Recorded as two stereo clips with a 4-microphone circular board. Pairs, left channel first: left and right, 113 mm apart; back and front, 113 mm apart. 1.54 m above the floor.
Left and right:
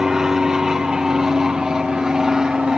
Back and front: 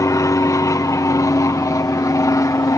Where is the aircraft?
170° right.